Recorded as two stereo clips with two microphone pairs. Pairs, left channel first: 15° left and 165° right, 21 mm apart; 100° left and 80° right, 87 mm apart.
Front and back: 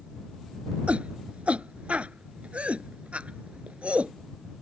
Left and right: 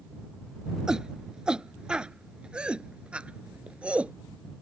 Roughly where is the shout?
Behind.